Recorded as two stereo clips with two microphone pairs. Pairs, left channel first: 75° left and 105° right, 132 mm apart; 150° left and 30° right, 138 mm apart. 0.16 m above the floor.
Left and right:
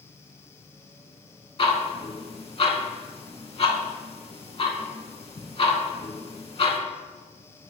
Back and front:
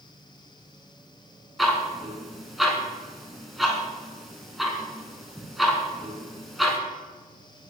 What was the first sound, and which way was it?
Ticking, 55° left.